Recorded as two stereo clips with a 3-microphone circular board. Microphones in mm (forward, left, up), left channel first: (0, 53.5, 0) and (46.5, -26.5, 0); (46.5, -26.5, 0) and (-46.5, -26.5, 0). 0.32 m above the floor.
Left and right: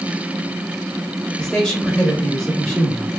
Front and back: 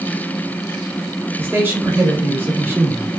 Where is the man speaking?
165° right, 0.9 m.